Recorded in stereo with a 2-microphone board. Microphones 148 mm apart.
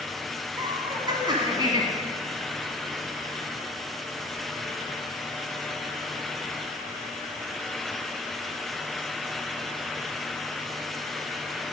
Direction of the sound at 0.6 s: 30° right (ahead or behind).